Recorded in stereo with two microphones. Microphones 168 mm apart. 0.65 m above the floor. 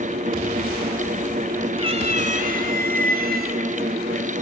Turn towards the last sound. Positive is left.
turn(degrees=-75)  # may be behind; listen again after turning